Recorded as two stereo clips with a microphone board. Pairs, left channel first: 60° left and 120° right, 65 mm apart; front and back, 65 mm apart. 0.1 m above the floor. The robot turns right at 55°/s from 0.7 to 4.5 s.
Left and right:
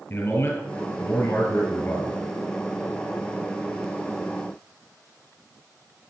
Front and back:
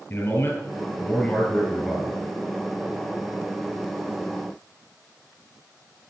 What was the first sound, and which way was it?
A man speaking, 30° left.